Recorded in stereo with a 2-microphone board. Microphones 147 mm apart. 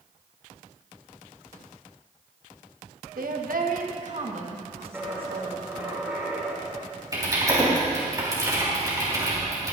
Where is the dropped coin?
5° right (ahead or behind), 2.5 m.